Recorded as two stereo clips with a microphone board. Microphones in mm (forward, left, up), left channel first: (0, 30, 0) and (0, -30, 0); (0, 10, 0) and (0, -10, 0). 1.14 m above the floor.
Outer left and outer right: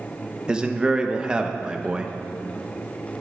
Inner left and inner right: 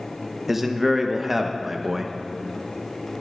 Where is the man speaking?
15° right (ahead or behind), 0.9 m.